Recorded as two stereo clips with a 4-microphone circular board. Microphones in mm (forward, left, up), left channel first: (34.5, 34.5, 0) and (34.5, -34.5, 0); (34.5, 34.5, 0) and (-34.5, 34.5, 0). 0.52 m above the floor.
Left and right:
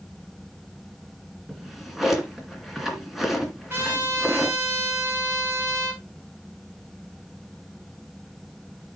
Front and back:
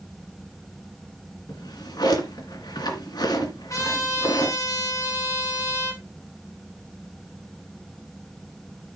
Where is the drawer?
5° right, 2 m.